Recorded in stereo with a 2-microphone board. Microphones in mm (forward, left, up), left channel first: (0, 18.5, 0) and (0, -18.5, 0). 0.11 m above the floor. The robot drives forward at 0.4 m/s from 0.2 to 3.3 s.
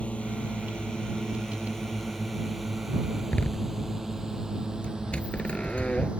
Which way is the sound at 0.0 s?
35° left (ahead or behind).